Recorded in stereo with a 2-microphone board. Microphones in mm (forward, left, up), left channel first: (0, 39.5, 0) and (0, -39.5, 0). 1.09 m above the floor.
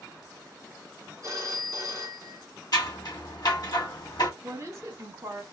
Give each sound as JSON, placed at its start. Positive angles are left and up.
{"t": 1.2, "sound": "a phone ringing", "side_deg": -45, "distance_m": 1.3}
{"t": 2.7, "sound": "scissors", "side_deg": 55, "distance_m": 1.3}
{"t": 4.4, "sound": "a woman speaking", "side_deg": -40, "distance_m": 1.7}